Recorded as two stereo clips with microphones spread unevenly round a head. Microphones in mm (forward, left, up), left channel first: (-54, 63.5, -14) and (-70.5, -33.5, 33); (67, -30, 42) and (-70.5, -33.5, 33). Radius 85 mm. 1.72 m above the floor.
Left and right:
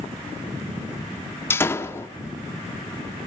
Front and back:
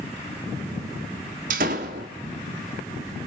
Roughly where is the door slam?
Behind.